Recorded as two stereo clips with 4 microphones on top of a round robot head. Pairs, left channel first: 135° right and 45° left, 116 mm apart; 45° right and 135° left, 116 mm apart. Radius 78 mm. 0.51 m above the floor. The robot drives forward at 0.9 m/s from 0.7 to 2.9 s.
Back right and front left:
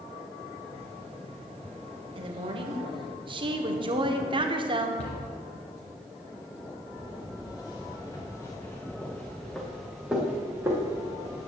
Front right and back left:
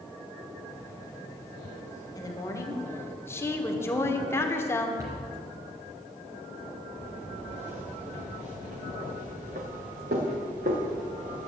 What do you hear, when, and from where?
2.1 s a woman speaking: 10° left, 1.9 m; by 4.9 s 20° left, 1.3 m
5.0 s a cupboard door: 165° right, 3.5 m
6.9 s footsteps: 175° left, 3.5 m; by 11.5 s 105° left, 2.5 m